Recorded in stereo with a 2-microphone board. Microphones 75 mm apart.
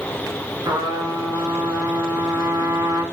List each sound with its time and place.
0.7 s a trumpet: 90° right, 3 m